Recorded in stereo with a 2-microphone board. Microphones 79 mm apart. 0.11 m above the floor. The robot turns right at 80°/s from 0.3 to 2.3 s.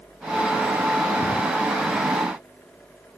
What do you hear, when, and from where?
1.2 s a drawer: 20° left (ahead or behind); by 1.4 s 35° left (ahead or behind)